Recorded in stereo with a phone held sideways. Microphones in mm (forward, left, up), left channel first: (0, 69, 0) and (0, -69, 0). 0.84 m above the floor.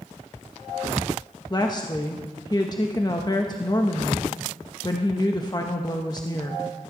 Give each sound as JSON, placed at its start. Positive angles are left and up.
{"t": 1.5, "sound": "a woman speaking", "side_deg": 30, "distance_m": 1.1}